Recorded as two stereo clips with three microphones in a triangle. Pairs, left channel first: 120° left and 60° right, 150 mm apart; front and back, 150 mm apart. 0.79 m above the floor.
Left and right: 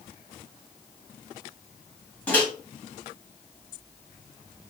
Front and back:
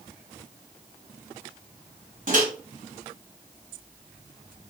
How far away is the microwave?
About 1.8 m.